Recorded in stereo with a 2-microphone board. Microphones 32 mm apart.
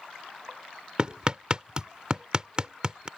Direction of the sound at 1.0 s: 30° right (ahead or behind).